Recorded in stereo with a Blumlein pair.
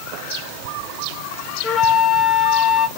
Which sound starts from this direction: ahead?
A flute, at 1.6 s.